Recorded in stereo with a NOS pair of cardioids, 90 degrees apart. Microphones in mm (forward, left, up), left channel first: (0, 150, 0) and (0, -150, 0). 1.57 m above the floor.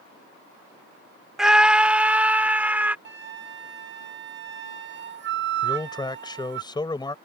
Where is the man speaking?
15° left.